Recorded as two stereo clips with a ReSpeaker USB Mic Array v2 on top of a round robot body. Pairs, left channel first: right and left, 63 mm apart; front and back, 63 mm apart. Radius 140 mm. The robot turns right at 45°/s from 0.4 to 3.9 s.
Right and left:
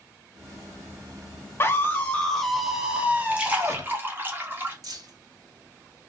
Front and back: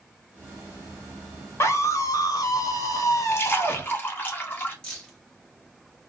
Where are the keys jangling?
80° left, 1.3 m.